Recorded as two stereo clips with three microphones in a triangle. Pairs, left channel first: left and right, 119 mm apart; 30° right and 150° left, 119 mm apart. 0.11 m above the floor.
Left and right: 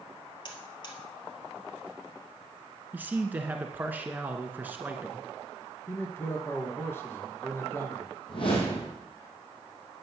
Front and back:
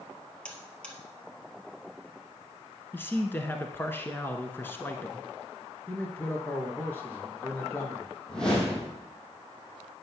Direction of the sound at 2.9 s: 55° right.